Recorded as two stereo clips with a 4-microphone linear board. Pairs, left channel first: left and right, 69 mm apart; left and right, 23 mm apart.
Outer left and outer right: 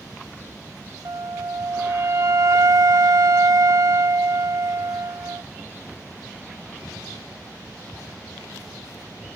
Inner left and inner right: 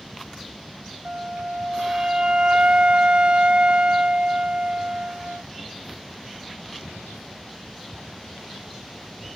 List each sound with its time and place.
1.1 s a flute: 50° right (ahead or behind)